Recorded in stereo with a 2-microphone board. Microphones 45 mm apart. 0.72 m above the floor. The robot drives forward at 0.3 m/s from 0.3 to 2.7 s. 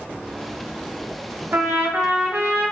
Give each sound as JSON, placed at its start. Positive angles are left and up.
{"t": 1.5, "sound": "a trumpet", "side_deg": -60, "distance_m": 0.8}